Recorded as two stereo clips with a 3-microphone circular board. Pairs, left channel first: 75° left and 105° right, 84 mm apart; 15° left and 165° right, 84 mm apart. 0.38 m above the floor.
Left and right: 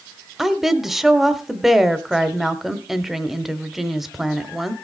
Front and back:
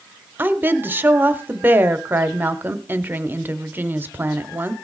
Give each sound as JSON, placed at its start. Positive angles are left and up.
{"t": 0.4, "sound": "a woman speaking", "azimuth_deg": 170, "distance_m": 0.8}